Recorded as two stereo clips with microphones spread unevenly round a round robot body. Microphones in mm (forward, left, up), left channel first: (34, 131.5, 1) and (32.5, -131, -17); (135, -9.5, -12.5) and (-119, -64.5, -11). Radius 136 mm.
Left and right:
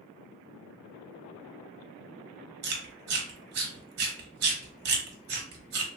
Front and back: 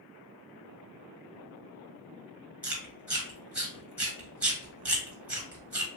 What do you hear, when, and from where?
2.6 s chewing: 85° right, 1.2 m